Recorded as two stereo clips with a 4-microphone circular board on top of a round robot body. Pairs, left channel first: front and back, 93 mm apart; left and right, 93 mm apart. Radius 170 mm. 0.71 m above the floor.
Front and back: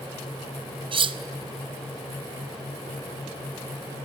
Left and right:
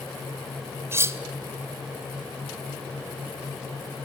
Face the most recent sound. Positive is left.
turn(degrees=-155)